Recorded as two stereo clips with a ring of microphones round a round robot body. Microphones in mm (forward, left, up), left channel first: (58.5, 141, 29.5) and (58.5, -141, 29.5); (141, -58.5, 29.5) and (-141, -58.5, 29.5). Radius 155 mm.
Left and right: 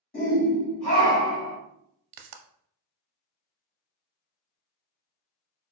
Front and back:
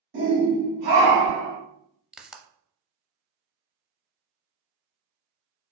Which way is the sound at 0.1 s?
140° left.